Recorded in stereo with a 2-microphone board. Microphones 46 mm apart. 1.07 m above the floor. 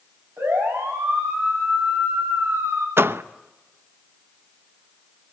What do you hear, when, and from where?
0.4 s a siren: 65° right (ahead or behind), 7 m; by 2.9 s 70° right (ahead or behind), 9.5 m
3.0 s a door slam: 60° right (ahead or behind), 0.7 m